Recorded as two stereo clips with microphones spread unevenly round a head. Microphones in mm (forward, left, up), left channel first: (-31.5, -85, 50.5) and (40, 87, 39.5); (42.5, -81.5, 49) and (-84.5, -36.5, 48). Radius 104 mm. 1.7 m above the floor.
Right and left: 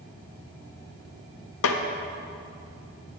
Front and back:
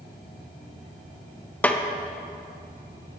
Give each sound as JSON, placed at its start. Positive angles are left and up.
{"t": 1.6, "sound": "a snare drum", "azimuth_deg": -100, "distance_m": 0.7}